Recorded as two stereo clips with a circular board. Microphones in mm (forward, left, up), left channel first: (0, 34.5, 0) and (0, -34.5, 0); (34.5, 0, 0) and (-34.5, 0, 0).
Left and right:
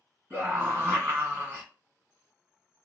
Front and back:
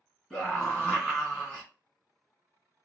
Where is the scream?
75° right, 1.8 m.